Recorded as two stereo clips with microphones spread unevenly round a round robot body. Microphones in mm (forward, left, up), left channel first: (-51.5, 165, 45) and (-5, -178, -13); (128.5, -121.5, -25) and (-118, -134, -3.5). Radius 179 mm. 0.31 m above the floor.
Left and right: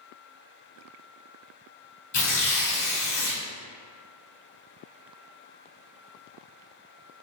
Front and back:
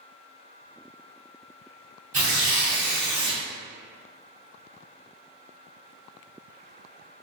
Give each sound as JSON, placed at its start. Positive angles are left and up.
{"t": 2.1, "sound": "tearing paper", "azimuth_deg": 125, "distance_m": 1.5}